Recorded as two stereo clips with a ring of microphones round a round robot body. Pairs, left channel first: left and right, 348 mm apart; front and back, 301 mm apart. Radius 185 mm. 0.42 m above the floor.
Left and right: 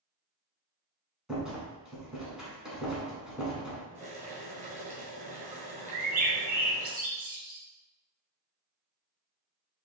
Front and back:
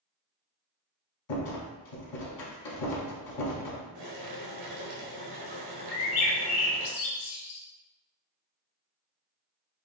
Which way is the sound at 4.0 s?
160° right.